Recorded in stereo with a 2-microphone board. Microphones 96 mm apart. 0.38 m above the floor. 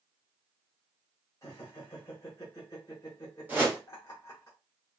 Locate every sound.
1.4 s laughter: 35° left (ahead or behind), 1.2 m
3.5 s a whoosh: 20° right (ahead or behind), 1.5 m